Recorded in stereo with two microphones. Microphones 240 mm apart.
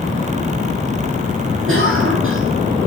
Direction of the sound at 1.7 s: 60° right (ahead or behind).